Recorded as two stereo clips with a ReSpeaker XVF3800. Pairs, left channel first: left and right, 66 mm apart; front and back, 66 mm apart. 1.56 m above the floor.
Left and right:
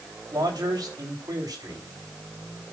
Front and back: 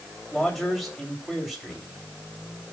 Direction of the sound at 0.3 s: 90° right.